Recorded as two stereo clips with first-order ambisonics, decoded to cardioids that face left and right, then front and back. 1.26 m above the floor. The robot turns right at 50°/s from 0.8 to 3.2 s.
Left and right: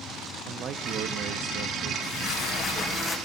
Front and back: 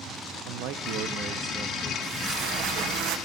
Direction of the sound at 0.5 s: 150° right.